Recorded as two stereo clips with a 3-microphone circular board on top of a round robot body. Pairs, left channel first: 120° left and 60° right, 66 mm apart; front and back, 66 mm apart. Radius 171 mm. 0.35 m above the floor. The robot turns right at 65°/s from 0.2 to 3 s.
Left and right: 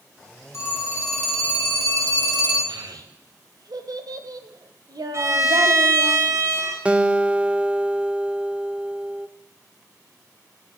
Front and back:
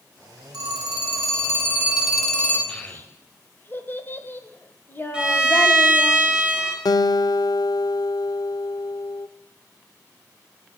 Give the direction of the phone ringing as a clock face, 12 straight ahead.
6 o'clock.